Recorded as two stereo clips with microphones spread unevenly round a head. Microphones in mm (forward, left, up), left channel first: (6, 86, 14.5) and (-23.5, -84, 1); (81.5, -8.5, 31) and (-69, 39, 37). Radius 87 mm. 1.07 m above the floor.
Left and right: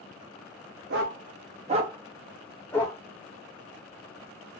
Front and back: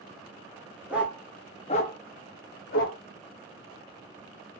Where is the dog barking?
115° right, 0.7 m; by 3.0 s 10° left, 0.9 m.